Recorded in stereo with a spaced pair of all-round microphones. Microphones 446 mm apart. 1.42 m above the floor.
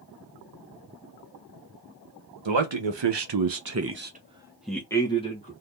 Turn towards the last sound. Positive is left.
turn(degrees=15)  # may be behind; listen again after turning